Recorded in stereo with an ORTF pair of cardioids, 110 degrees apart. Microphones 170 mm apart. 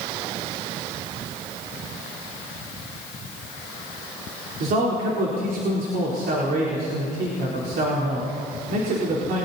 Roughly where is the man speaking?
Ahead right.